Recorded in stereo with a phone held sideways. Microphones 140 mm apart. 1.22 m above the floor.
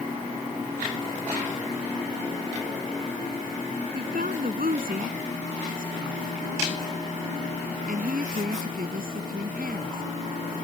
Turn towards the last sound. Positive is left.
turn(degrees=-75)  # may be behind; listen again after turning